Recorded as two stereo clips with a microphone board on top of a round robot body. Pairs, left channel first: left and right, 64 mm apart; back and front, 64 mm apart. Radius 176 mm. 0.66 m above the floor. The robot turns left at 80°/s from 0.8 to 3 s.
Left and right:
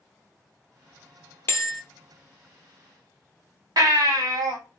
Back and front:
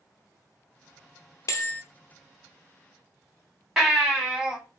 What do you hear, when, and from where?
1.5 s a bell: 140° left, 0.6 m; by 1.8 s 115° left, 0.6 m
3.8 s a baby crying: 80° right, 2.5 m